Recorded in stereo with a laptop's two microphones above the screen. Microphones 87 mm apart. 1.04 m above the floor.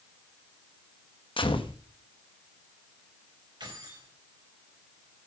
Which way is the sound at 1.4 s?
75° left (ahead or behind).